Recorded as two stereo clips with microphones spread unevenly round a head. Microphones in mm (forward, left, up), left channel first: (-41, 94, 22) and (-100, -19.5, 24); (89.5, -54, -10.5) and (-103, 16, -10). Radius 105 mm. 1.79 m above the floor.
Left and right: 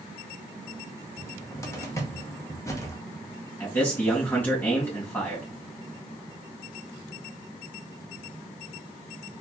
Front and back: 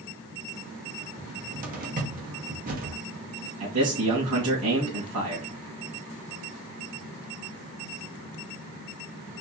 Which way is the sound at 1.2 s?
125° left.